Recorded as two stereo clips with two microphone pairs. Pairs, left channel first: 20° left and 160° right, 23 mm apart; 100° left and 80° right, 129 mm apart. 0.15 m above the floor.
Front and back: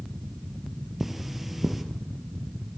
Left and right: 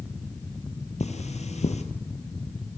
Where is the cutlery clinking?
125° left, 2 m.